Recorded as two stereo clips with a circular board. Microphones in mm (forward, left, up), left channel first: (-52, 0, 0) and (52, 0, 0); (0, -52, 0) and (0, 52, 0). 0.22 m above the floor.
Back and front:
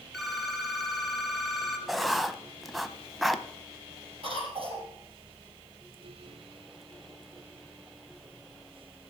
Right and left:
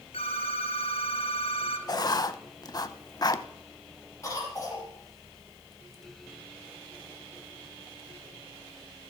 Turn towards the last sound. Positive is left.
turn(degrees=-25)